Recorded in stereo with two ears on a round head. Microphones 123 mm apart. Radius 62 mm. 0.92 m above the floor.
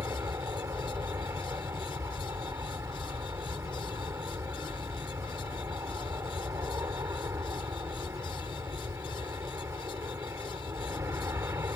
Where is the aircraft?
20° right (ahead or behind).